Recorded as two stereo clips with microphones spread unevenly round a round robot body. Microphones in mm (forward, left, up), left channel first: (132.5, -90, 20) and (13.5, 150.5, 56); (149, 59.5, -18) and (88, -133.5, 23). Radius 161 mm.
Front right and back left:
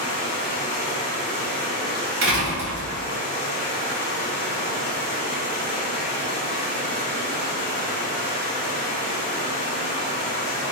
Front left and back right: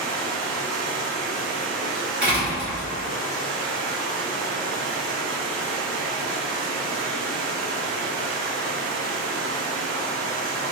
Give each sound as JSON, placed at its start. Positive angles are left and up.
{"t": 0.0, "sound": "running water", "azimuth_deg": -110, "distance_m": 1.1}
{"t": 2.2, "sound": "a door slam", "azimuth_deg": 160, "distance_m": 0.8}